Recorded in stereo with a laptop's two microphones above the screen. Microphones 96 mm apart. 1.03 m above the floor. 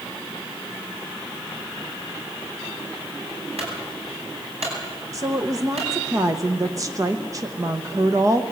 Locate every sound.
3.6 s a clunk: 80° right, 9 m
5.1 s a woman speaking: 35° right (ahead or behind), 0.9 m